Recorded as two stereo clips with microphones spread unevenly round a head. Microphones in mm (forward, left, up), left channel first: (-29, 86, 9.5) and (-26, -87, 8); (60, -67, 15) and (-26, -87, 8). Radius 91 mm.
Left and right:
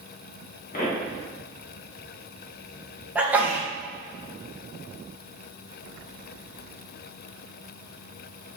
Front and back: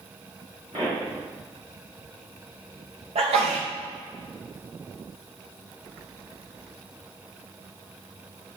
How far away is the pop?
About 1.8 m.